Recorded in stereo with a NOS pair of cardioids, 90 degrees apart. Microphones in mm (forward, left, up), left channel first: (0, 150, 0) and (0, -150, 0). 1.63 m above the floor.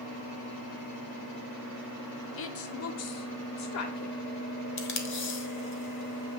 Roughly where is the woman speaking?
Ahead left.